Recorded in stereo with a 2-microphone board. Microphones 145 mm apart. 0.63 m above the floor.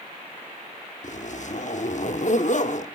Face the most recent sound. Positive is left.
turn(degrees=55)  # may be behind; listen again after turning